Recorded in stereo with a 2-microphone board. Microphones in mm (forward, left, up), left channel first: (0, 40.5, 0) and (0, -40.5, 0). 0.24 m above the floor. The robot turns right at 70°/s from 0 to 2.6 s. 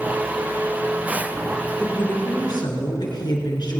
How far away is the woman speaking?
About 3.5 m.